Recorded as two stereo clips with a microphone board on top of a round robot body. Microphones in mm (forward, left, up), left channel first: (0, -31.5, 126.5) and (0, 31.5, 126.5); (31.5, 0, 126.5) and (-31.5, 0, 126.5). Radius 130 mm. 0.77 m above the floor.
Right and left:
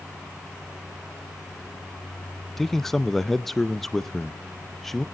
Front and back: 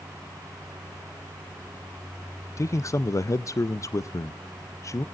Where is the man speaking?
5° right, 0.6 m.